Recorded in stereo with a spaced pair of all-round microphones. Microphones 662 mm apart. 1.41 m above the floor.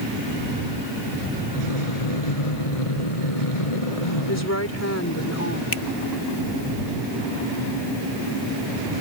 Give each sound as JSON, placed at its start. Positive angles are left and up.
{"t": 1.5, "sound": "breathing", "side_deg": 55}
{"t": 4.3, "sound": "a woman speaking", "side_deg": 20}
{"t": 5.7, "sound": "a finger snap", "side_deg": 45}